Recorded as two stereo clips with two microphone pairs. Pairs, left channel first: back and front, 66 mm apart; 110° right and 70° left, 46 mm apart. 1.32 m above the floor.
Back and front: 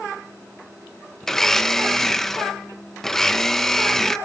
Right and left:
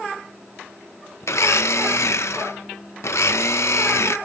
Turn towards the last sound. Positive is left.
turn(degrees=-95)